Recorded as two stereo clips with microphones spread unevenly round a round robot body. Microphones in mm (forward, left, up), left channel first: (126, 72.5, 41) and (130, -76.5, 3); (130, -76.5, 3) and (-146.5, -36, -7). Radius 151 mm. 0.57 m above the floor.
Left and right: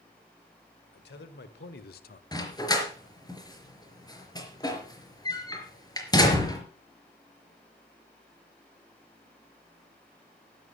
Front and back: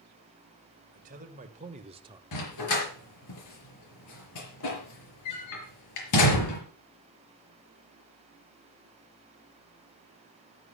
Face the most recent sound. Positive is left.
turn(degrees=30)